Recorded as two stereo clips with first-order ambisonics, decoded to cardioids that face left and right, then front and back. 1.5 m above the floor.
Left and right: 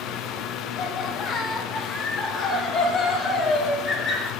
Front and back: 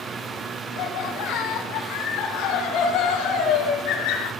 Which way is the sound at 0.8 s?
10° left.